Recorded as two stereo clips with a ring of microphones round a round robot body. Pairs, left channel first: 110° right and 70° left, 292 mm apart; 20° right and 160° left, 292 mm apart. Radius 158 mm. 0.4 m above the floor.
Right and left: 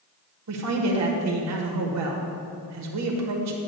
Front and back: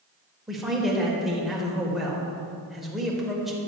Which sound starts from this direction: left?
A man speaking, at 0.5 s.